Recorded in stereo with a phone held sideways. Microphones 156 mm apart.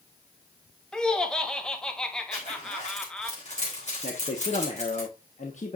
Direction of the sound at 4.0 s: 50° left (ahead or behind).